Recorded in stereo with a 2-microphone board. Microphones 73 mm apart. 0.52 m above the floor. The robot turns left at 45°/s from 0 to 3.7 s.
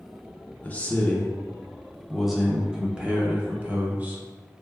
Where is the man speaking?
20° left (ahead or behind), 0.7 m; by 4.2 s 20° right (ahead or behind), 0.7 m.